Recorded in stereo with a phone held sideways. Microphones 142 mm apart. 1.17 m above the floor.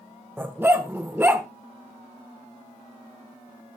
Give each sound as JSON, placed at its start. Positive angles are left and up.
{"t": 0.4, "sound": "a dog barking", "side_deg": -15, "distance_m": 1.4}